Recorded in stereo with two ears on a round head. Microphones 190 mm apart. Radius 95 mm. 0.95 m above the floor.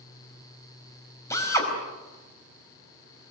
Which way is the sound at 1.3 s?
15° left (ahead or behind).